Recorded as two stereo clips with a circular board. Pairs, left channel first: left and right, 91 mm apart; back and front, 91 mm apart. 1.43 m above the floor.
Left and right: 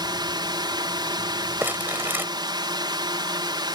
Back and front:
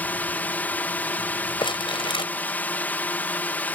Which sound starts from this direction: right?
A drone, at 0.0 s.